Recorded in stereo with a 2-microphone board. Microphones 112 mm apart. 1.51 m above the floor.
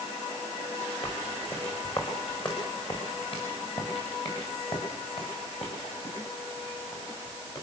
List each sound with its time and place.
1.0 s footsteps: 45° left (ahead or behind), 7.5 m